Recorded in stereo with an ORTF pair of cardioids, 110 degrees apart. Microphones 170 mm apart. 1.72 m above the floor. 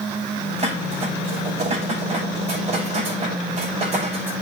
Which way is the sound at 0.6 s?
35° right.